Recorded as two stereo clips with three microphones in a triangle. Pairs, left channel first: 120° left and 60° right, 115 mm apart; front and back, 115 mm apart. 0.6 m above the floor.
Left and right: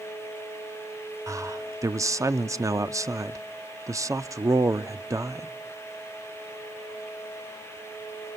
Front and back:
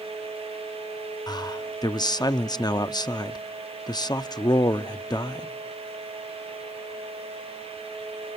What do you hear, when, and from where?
1.3 s a man speaking: 15° right, 0.7 m